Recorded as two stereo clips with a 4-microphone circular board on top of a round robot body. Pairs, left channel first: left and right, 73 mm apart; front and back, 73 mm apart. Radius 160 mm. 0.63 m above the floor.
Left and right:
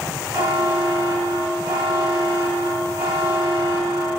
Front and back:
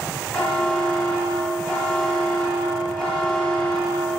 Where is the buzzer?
75° right, 5 m.